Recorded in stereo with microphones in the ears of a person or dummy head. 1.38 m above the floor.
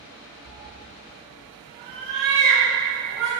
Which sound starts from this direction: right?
A cat meowing, at 0.5 s.